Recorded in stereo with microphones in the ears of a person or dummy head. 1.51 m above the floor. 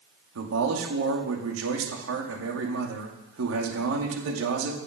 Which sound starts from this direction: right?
A man speaking, at 0.3 s.